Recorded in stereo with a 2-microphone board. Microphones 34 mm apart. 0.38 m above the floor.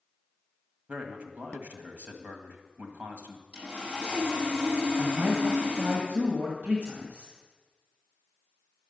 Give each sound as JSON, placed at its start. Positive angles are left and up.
{"t": 0.9, "sound": "a man speaking", "side_deg": -50, "distance_m": 1.7}
{"t": 3.5, "sound": "sawing", "side_deg": -45, "distance_m": 6.0}
{"t": 5.0, "sound": "a man speaking", "side_deg": -60, "distance_m": 1.8}